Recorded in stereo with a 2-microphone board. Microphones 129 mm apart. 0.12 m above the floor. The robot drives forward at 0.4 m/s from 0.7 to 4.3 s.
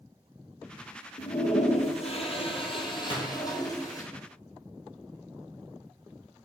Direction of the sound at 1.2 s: 70° left (ahead or behind).